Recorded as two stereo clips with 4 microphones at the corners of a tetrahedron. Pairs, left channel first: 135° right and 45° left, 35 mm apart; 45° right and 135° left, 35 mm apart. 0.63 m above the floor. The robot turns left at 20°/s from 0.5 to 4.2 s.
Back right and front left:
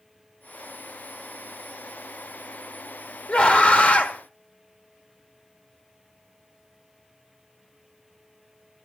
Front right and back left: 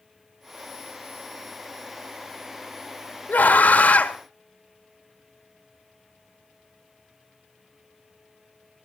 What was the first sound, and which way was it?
A scream, 75° right.